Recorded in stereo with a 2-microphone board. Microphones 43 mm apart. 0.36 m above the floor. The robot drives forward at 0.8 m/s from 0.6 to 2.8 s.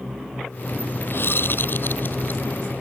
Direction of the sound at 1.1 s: 60° left (ahead or behind).